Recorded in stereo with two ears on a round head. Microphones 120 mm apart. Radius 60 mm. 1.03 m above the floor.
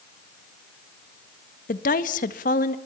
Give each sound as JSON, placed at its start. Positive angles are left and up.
{"t": 1.7, "sound": "a woman speaking", "side_deg": 65, "distance_m": 1.6}